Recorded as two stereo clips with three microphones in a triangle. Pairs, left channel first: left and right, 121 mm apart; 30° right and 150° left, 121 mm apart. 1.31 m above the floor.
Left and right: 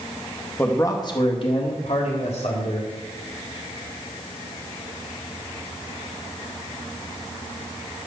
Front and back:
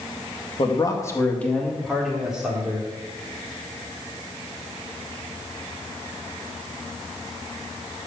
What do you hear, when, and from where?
0.6 s a man speaking: 15° left, 1.8 m; by 2.9 s 75° left, 4 m